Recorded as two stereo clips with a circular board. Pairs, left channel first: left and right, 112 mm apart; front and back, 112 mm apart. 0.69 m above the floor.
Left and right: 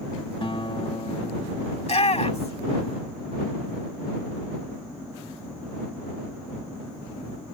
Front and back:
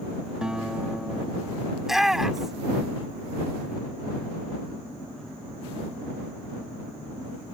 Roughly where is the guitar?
Left.